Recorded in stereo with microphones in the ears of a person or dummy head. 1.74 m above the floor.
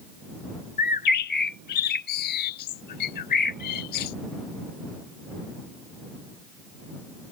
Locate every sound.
0.8 s a bird: 45° left (ahead or behind)